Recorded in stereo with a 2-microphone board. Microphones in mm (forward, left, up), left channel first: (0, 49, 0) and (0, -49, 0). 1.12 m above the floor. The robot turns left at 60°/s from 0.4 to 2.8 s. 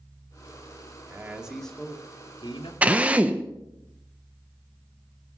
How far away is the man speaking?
About 2 m.